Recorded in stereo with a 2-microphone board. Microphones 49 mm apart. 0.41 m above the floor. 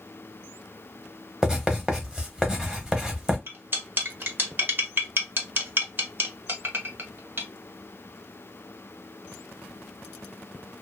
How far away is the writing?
About 0.8 m.